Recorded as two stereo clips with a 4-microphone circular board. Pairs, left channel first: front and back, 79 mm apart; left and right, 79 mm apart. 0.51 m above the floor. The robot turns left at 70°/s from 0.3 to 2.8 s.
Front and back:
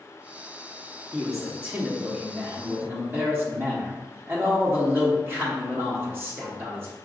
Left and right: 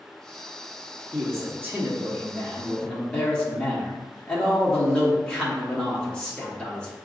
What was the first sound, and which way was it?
A man speaking, 85° right.